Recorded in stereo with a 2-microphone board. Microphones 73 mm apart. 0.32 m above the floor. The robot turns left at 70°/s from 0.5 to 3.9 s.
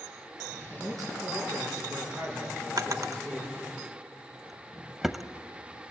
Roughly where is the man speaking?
Ahead right.